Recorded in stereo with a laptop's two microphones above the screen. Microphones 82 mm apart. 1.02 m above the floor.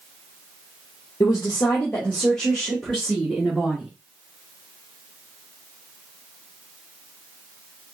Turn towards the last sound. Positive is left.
turn(degrees=-10)  # may be behind; listen again after turning